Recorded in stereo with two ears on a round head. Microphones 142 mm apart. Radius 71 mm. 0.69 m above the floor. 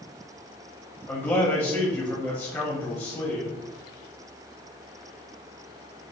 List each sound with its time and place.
1.1 s a man speaking: 15° left (ahead or behind), 0.9 m